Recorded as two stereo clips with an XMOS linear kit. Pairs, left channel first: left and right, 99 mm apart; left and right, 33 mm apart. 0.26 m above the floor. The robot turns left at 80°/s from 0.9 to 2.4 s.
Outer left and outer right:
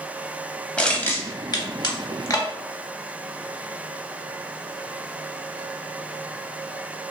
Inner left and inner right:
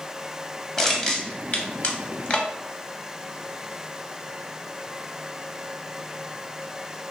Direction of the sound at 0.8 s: 10° left (ahead or behind).